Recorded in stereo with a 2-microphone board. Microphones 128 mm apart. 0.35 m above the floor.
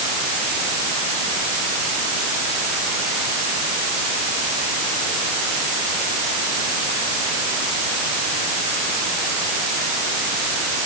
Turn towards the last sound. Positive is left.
No sound to turn to.